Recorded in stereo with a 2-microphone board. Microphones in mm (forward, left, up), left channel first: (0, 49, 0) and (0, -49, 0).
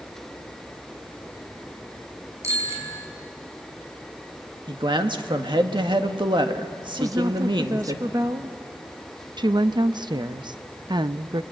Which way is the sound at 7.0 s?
40° right (ahead or behind).